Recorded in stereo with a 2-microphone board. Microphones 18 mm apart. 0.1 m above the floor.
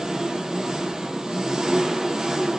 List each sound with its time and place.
0.0 s an engine running: 40° right (ahead or behind), 1.0 m